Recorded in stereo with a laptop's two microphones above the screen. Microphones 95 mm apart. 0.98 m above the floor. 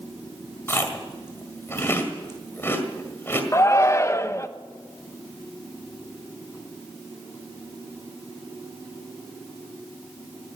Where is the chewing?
25° left (ahead or behind), 1.6 m.